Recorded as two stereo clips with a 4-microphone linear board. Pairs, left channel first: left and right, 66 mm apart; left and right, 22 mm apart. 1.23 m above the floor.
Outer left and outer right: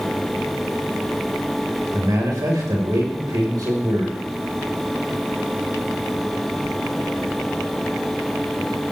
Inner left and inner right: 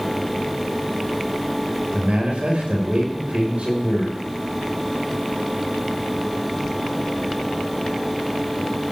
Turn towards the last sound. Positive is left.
turn(degrees=-80)